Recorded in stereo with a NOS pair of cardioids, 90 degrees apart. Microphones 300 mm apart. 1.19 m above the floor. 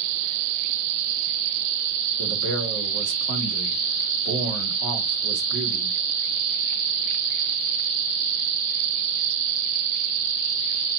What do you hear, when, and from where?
2.2 s a man speaking: 65° right, 3 m